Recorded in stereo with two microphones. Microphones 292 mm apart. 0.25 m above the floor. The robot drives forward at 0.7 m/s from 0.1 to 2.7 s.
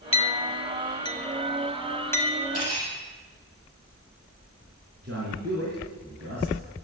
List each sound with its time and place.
0.1 s a clink: 20° left (ahead or behind), 0.5 m; by 2.4 s 5° left (ahead or behind), 1.6 m
2.5 s cutlery clinking: 55° right (ahead or behind), 6 m
5.0 s a man speaking: 55° right (ahead or behind), 4.5 m